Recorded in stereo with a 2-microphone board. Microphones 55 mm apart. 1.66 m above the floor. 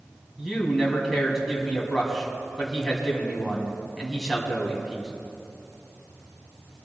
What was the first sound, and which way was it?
A man speaking, centre (ahead or behind).